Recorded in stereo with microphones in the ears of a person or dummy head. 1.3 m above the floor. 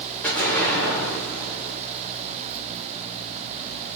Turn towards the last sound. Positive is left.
turn(degrees=5)  # may be behind; listen again after turning